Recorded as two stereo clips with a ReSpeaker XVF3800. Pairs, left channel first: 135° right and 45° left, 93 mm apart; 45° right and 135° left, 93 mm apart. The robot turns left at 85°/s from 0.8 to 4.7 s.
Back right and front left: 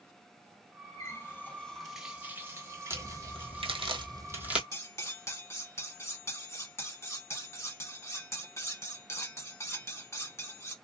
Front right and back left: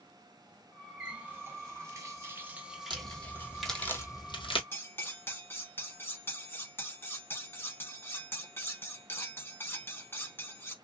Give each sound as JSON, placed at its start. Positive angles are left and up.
{"t": 1.0, "sound": "a running tap", "azimuth_deg": -145, "distance_m": 0.9}
{"t": 2.9, "sound": "a crack", "azimuth_deg": 110, "distance_m": 1.0}
{"t": 4.7, "sound": "cutlery clinking", "azimuth_deg": -95, "distance_m": 0.8}